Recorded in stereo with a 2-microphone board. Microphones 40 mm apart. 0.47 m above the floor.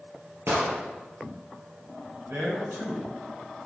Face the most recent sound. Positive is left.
turn(degrees=-70)  # may be behind; listen again after turning